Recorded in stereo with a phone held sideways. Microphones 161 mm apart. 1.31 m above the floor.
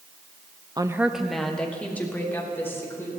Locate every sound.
0.8 s a woman speaking: 25° right (ahead or behind), 0.7 m; by 3.1 s 15° left (ahead or behind), 4 m